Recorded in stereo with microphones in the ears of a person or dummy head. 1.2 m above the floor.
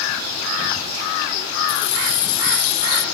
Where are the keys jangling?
65° left (ahead or behind); by 3.0 s 55° left (ahead or behind).